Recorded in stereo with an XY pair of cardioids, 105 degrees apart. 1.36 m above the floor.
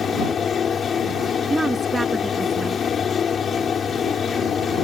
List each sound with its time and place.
0.0 s a fan: 50° left
1.5 s a woman speaking: 10° right